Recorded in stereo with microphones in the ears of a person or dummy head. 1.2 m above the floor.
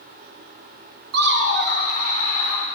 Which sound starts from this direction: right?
Laughter, at 1.1 s.